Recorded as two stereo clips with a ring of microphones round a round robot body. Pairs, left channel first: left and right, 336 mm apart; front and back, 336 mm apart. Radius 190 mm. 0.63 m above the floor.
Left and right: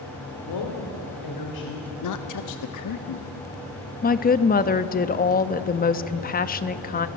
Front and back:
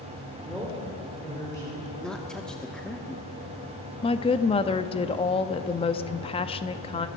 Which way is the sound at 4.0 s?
55° left.